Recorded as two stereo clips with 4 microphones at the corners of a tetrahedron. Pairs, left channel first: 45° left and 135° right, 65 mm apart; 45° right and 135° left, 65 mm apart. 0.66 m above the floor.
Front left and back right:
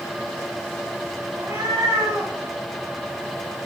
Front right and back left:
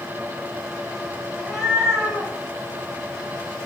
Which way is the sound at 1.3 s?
140° right.